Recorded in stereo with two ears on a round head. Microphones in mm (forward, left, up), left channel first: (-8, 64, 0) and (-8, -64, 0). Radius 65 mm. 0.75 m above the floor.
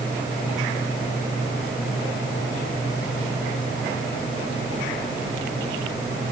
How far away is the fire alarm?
No fire alarm in this recording.